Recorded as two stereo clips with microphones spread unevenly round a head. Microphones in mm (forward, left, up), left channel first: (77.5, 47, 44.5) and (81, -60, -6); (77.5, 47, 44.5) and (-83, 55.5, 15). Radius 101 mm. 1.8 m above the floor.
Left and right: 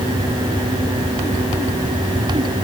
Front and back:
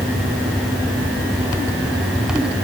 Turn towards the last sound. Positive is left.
No sound to turn to.